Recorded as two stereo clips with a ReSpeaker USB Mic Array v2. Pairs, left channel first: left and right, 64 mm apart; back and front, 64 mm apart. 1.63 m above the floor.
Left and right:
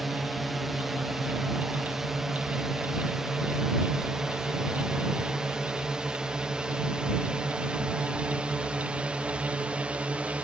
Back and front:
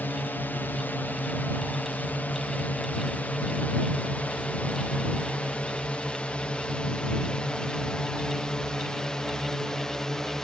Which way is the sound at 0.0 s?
175° right.